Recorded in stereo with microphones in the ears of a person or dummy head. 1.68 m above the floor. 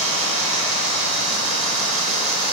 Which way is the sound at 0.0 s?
75° right (ahead or behind).